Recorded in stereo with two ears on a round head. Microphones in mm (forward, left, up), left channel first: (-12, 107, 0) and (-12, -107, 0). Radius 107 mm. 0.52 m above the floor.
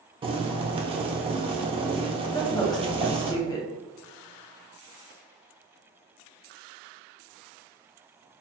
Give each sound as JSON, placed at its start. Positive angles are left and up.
{"t": 0.2, "sound": "boiling", "side_deg": -25, "distance_m": 0.6}
{"t": 2.3, "sound": "a woman speaking", "side_deg": 15, "distance_m": 0.8}